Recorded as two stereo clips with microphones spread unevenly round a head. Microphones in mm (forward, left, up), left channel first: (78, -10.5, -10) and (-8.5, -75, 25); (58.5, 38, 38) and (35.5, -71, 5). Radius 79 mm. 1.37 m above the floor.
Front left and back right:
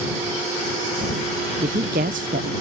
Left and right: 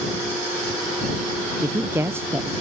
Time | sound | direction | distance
1.6 | a woman speaking | 170° right | ?